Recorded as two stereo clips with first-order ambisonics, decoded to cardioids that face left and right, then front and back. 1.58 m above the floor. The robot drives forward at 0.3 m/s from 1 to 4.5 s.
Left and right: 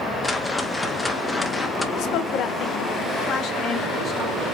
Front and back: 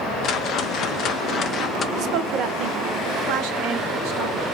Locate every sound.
0.2 s a whoosh: 10° left, 0.9 m; by 1.9 s 15° left, 0.7 m
2.0 s a woman speaking: 130° left, 1.0 m; by 4.5 s 155° left, 1.6 m